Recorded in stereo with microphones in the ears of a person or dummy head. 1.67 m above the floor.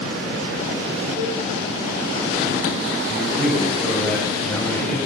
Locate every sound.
1.2 s a cowbell: 40° right (ahead or behind), 6.5 m
3.1 s a man speaking: 10° left (ahead or behind), 7.5 m